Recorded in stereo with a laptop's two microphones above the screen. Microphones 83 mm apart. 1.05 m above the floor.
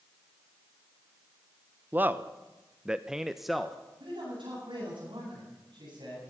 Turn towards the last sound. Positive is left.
turn(degrees=-80)